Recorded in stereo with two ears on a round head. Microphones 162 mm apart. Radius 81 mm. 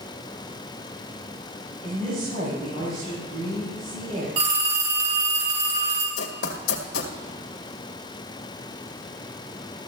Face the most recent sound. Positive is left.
turn(degrees=70)  # may be behind; listen again after turning